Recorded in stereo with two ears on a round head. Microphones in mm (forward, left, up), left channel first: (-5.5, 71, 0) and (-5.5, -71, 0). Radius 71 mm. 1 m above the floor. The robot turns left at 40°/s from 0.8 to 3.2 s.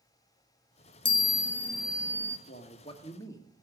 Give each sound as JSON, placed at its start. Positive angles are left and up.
{"t": 1.1, "sound": "a chime", "azimuth_deg": 35, "distance_m": 1.1}
{"t": 2.5, "sound": "a man speaking", "side_deg": 50, "distance_m": 1.5}